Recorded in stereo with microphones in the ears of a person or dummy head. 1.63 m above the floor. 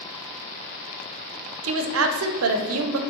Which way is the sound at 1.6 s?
85° right.